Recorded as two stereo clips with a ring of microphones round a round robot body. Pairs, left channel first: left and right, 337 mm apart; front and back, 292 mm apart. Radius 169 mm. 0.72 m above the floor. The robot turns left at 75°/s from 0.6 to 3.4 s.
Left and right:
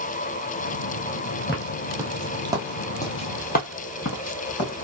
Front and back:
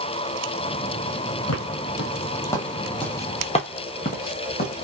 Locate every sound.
1.5 s footsteps: 20° left, 1.0 m; by 4.8 s 50° left, 1.4 m